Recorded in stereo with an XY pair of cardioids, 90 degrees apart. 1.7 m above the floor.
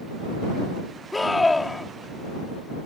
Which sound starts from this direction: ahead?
A scream, at 1.1 s.